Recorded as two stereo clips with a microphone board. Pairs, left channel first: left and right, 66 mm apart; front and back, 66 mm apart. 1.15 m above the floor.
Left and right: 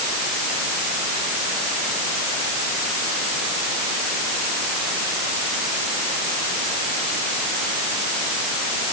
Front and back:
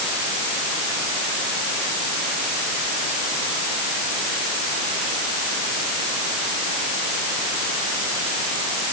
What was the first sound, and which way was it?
Only background noise.